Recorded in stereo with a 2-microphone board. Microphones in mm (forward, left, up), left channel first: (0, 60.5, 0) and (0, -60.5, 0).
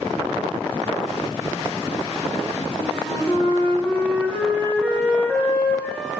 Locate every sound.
2.8 s a flute: 10° left (ahead or behind), 0.7 m